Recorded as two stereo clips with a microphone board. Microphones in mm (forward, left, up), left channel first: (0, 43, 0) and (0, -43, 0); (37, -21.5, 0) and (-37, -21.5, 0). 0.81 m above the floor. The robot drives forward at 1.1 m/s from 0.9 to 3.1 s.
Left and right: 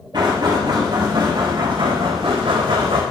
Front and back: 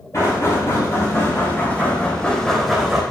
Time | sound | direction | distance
0.1 | knocking | 50° right | 3 m